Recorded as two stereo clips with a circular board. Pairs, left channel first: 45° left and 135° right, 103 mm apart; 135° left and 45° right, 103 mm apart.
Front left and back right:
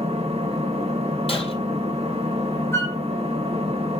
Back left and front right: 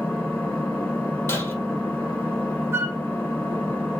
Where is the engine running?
145° right, 1.1 m.